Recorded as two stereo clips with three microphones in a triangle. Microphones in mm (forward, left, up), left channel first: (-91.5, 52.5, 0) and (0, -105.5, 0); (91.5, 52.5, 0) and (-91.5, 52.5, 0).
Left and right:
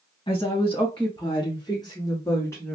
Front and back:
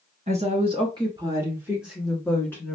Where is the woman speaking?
160° left, 1.5 m; by 2.8 s 55° left, 1.3 m.